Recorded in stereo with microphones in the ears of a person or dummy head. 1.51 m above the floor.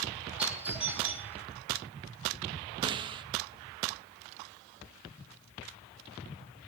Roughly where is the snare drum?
Right.